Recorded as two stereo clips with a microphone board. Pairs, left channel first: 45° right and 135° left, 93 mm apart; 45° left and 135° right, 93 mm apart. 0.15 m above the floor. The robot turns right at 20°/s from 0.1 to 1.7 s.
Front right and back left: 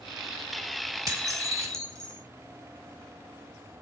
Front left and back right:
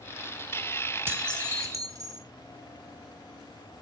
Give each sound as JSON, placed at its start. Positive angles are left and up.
{"t": 1.1, "sound": "dishes clattering", "azimuth_deg": 170, "distance_m": 1.4}